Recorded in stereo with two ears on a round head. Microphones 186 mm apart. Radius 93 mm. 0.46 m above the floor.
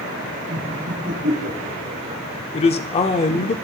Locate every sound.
0.5 s laughter: 50° right (ahead or behind), 4 m; by 2.2 s 40° right (ahead or behind), 6.5 m
2.5 s a man speaking: 30° left (ahead or behind), 0.8 m